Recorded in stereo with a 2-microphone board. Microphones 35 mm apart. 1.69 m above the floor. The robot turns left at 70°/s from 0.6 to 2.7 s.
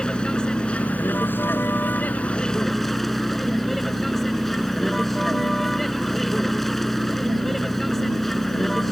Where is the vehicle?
155° left; by 8.9 s 5° left.